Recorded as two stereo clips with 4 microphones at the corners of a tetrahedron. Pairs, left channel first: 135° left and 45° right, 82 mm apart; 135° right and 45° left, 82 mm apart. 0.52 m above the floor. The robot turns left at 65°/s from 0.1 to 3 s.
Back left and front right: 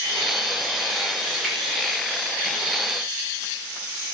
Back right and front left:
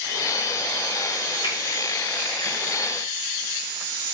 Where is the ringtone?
I don't hear a ringtone.